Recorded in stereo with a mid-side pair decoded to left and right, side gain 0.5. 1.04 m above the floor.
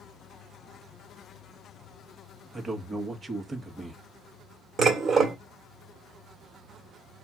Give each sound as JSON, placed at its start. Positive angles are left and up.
{"t": 2.5, "sound": "a man speaking", "azimuth_deg": -30, "distance_m": 1.4}
{"t": 4.8, "sound": "dishes clattering", "azimuth_deg": -40, "distance_m": 1.8}